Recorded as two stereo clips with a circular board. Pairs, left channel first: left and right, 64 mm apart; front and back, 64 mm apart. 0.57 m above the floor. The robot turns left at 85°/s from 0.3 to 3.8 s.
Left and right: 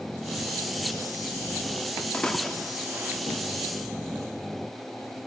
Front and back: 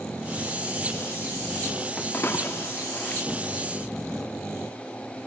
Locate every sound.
2.1 s a splash: 35° left, 0.7 m; by 3.2 s 55° right, 0.7 m